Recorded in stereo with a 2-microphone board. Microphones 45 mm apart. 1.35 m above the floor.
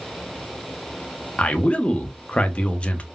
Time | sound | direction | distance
1.4 | a man speaking | 30° left (ahead or behind) | 0.6 m